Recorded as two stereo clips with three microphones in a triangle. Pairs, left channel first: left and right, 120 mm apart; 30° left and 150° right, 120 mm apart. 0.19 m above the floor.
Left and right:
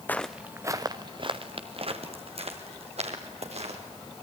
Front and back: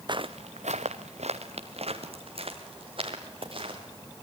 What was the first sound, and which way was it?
Footsteps, 165° left.